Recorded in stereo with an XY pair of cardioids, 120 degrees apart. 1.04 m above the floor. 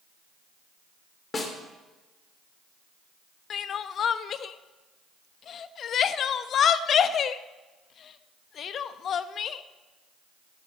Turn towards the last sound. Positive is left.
turn(degrees=50)